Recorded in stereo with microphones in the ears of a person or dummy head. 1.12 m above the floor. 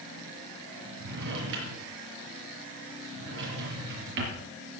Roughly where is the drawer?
Right.